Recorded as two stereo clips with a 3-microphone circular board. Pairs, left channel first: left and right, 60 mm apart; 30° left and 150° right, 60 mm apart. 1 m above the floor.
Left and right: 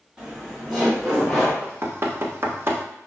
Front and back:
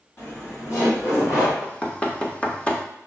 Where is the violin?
No violin in this recording.